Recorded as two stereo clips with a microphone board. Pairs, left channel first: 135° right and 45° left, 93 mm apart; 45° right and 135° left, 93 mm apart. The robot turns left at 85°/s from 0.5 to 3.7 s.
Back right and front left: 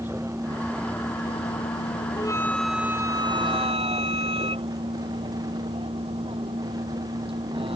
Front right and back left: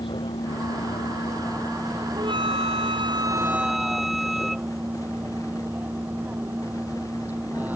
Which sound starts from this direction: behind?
A flute, at 2.2 s.